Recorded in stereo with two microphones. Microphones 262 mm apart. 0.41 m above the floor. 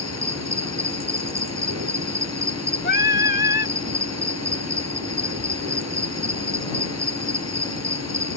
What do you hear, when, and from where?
0.0 s an insect: 75° right (ahead or behind)
2.8 s singing: 40° left (ahead or behind)